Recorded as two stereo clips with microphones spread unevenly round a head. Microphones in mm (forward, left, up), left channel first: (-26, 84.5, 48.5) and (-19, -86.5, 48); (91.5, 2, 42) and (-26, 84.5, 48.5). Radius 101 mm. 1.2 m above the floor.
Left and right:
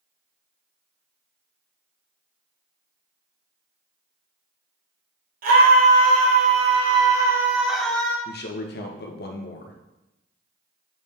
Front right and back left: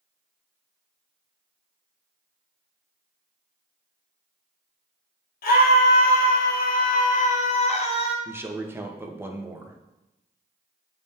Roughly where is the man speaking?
Left.